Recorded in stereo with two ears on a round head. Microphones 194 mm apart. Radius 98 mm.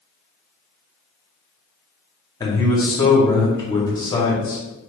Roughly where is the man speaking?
Centre.